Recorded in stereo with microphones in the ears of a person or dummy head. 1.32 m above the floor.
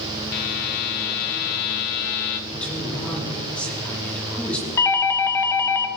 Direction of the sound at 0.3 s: 45° left (ahead or behind).